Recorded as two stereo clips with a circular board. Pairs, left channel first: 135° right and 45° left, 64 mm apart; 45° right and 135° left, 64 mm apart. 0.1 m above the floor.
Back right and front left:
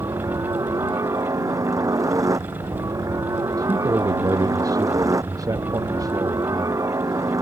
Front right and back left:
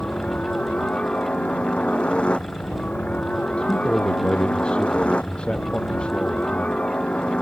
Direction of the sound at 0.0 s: 25° left.